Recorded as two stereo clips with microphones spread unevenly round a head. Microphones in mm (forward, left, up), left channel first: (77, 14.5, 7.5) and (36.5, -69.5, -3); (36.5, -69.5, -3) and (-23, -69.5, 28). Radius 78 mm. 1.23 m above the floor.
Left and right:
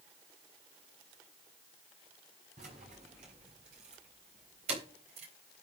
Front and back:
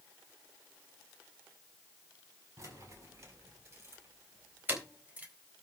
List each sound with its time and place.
2.6 s keys jangling: 150° right, 5.5 m; by 5.3 s 120° right, 3.5 m